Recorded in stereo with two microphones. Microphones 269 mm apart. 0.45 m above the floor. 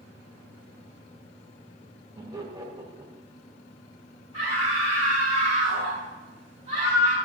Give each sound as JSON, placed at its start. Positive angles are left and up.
{"t": 2.1, "sound": "laughter", "side_deg": -10, "distance_m": 2.0}
{"t": 4.3, "sound": "a scream", "side_deg": 55, "distance_m": 5.0}